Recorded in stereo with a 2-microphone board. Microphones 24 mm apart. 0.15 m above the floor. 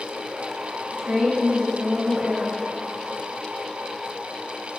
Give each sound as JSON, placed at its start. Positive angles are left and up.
{"t": 0.9, "sound": "a woman speaking", "side_deg": -55, "distance_m": 2.0}